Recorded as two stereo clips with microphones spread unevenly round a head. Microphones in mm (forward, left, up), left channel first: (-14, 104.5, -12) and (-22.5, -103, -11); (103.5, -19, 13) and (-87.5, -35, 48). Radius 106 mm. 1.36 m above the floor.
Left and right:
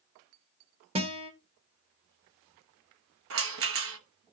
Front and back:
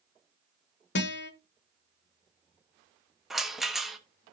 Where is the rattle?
90° right, 1.1 m.